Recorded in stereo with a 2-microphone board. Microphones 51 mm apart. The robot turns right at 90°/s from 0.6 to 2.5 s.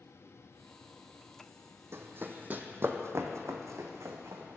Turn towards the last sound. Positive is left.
turn(degrees=-75)  # may be behind; listen again after turning